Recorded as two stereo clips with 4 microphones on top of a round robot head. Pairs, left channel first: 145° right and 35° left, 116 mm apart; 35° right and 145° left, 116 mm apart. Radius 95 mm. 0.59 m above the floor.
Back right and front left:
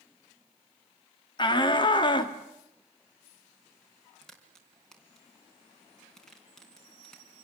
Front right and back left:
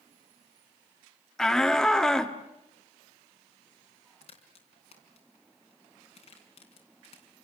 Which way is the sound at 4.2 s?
65° right.